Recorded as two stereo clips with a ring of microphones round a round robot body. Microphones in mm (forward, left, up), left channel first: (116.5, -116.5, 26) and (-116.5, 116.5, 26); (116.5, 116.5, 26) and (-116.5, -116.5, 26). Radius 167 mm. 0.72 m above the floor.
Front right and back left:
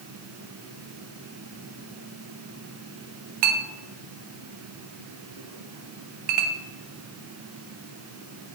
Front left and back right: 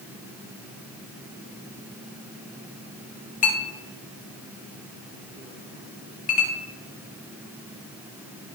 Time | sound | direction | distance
3.4 | a clink | 115° left | 0.9 m